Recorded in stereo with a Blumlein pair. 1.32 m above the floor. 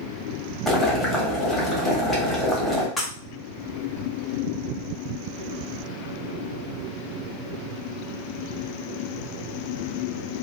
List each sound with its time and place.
0.7 s boiling: 5° left, 1.3 m
3.0 s breaking glass: 10° left, 1.3 m